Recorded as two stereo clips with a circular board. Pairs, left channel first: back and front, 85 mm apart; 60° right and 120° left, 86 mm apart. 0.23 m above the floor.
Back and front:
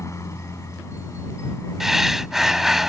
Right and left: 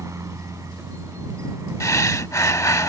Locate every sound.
0.0 s a helicopter: 150° left
1.8 s breathing: 85° right